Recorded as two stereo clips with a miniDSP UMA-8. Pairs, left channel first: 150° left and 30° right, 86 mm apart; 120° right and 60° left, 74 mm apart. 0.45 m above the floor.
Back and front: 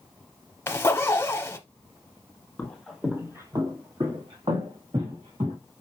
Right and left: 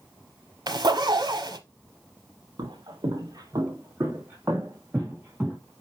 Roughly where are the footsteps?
Left.